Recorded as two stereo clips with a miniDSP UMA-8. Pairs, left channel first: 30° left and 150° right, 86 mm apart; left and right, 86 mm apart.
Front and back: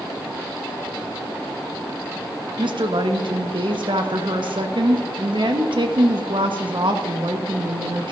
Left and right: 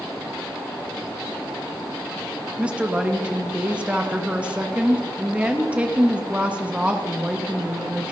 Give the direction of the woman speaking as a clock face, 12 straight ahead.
5 o'clock.